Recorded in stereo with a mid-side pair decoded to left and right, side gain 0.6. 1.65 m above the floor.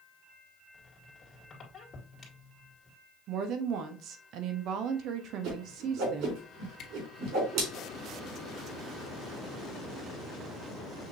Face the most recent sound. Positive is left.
turn(degrees=50)